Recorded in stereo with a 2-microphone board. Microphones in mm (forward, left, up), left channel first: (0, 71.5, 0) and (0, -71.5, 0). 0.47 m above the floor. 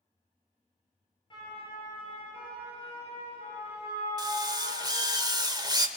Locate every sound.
1.3 s a siren: 30° left (ahead or behind), 9 m; by 5.2 s 45° left (ahead or behind), 10 m
4.2 s a drill: 25° right (ahead or behind), 1.6 m